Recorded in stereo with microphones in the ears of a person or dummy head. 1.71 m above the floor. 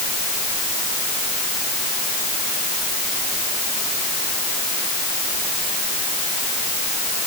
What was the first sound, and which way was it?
Only background noise.